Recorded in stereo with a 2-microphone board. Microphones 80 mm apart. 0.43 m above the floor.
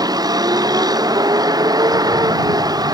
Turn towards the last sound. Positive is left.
turn(degrees=-50)  # may be behind; listen again after turning